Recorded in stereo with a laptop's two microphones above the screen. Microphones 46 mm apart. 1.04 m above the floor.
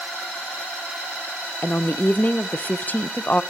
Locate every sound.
1.6 s a woman speaking: 35° left (ahead or behind), 0.7 m